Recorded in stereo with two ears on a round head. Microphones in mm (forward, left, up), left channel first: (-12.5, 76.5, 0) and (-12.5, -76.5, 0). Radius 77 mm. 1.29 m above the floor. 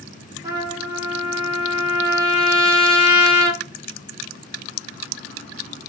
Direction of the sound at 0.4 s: 20° right (ahead or behind).